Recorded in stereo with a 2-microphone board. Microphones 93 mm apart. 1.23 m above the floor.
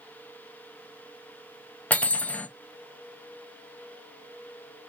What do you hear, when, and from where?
1.9 s cutlery clinking: 15° left (ahead or behind), 0.5 m